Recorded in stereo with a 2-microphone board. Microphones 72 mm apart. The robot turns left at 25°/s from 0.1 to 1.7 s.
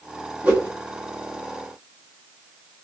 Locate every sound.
0.4 s a whoosh: 25° right (ahead or behind), 1.5 m; by 0.7 s 30° right (ahead or behind), 1.5 m